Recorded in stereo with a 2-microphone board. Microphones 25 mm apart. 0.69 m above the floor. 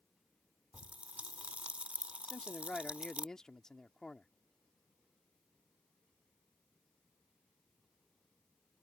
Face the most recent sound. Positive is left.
turn(degrees=25)  # may be behind; listen again after turning